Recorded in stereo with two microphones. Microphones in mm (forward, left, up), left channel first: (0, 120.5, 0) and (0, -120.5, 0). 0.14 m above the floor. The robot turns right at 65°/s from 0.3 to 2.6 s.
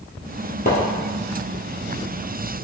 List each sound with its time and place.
0.7 s a splash: 35° left (ahead or behind), 1.3 m; by 0.8 s 45° left (ahead or behind), 1.3 m